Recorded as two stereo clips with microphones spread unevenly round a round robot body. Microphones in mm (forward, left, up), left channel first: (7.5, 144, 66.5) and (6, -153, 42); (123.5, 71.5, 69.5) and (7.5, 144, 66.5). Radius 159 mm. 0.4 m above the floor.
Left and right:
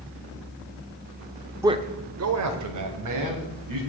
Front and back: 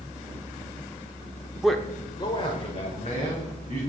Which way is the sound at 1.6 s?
140° right.